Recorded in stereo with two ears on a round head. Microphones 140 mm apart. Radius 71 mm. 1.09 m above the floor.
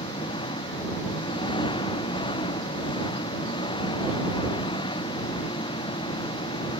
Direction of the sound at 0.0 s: 30° left (ahead or behind).